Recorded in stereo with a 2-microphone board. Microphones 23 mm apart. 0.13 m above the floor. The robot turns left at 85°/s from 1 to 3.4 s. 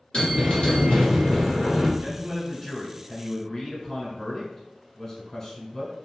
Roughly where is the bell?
Behind left.